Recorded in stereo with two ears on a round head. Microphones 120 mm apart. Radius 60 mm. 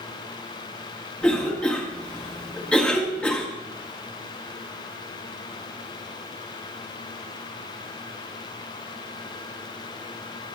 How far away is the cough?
About 1.1 m.